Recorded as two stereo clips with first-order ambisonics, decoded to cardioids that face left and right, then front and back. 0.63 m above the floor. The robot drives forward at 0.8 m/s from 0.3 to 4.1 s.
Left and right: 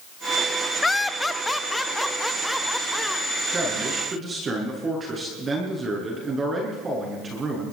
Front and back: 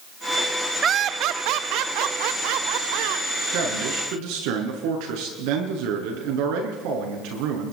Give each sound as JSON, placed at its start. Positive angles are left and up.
{"t": 0.8, "sound": "laughter", "azimuth_deg": 160, "distance_m": 0.5}
{"t": 3.5, "sound": "a man speaking", "azimuth_deg": -160, "distance_m": 7.0}